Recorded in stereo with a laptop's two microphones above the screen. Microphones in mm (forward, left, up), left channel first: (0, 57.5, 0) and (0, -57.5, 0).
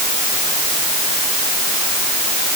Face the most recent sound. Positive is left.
No sound to turn to.